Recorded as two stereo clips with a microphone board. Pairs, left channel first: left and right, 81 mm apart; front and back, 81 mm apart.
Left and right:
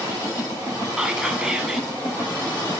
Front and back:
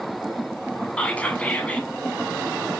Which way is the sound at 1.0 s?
30° right.